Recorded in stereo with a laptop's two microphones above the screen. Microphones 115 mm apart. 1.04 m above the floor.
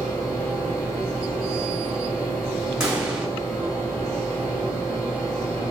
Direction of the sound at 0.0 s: 30° left (ahead or behind).